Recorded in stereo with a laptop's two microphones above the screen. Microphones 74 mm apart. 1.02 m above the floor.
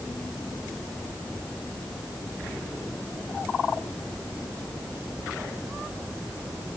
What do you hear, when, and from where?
Only background noise.